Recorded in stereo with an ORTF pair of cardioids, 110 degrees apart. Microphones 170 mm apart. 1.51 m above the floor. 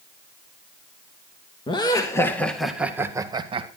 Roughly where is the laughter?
Ahead left.